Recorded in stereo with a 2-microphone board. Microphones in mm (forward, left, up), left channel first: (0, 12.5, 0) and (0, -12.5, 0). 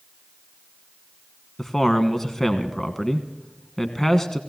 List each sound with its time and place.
1.6 s a man speaking: 15° left (ahead or behind), 1.2 m